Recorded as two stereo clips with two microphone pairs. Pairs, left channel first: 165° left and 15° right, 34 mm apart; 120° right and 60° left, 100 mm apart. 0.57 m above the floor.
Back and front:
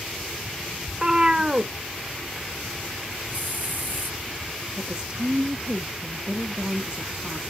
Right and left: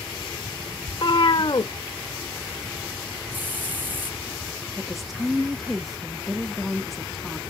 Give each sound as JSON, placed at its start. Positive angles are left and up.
{"t": 0.9, "sound": "a cat meowing", "azimuth_deg": -80, "distance_m": 0.6}
{"t": 3.3, "sound": "a hiss", "azimuth_deg": -10, "distance_m": 1.6}
{"t": 4.8, "sound": "a woman speaking", "azimuth_deg": -30, "distance_m": 0.6}